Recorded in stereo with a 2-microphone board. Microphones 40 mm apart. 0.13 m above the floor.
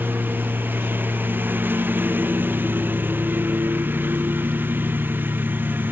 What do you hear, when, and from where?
0.0 s a lawn mower: 60° right (ahead or behind)